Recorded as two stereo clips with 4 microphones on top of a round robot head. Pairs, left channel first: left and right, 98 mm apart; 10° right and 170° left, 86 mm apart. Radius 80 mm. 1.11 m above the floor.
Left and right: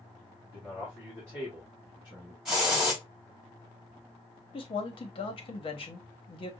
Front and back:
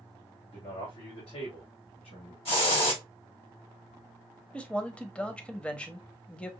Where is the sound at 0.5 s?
5° right, 3 m; by 2.4 s 20° right, 2.5 m.